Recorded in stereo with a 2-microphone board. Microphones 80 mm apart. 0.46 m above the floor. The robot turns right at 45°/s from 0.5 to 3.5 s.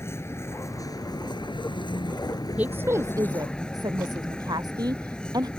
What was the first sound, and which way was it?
A vehicle, 35° left.